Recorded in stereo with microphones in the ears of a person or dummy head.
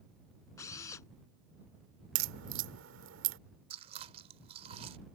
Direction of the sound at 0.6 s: 20° left (ahead or behind).